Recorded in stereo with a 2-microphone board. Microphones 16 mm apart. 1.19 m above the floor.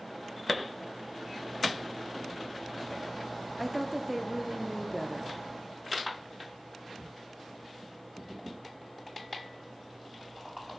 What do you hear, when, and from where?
3.6 s a woman speaking: centre (ahead or behind), 0.9 m